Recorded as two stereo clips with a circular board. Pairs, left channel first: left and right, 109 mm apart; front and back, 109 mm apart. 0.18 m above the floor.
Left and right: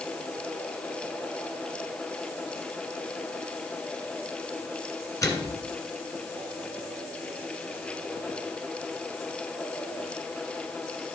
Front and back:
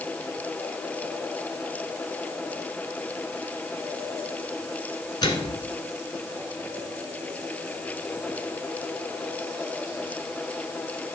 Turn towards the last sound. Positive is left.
turn(degrees=35)